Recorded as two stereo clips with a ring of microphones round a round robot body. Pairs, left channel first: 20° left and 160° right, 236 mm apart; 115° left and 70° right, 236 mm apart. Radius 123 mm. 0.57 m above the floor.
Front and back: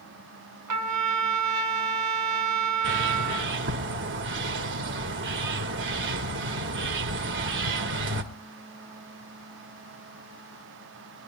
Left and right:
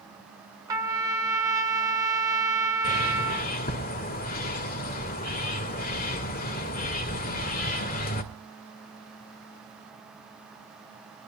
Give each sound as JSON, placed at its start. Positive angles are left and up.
{"t": 0.7, "sound": "a trumpet", "azimuth_deg": -145, "distance_m": 2.5}
{"t": 2.8, "sound": "a bird", "azimuth_deg": 165, "distance_m": 1.9}